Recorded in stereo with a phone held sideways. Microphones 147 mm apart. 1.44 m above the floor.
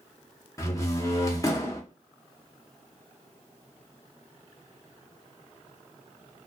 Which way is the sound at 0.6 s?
25° left (ahead or behind).